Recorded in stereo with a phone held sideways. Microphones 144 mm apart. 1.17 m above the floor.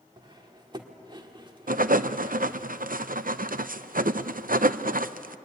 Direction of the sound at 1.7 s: 75° right (ahead or behind).